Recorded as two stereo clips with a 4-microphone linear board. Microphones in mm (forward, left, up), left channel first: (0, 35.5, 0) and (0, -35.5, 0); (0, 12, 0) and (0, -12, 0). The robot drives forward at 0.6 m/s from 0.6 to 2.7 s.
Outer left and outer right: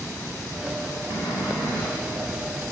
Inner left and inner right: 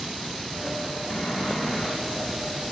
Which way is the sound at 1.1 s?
80° left.